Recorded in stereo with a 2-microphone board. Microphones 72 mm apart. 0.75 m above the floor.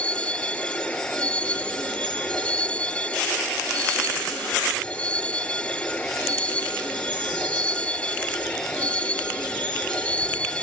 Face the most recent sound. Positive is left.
turn(degrees=15)  # may be behind; listen again after turning